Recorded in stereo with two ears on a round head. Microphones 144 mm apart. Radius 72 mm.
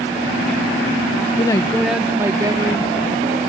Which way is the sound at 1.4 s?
30° left (ahead or behind).